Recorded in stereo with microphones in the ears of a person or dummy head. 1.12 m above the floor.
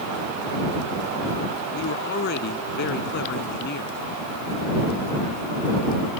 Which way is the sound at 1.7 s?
55° left (ahead or behind).